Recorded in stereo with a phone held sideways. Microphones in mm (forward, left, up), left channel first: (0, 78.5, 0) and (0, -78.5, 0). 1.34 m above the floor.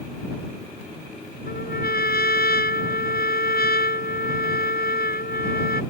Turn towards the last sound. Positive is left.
turn(degrees=80)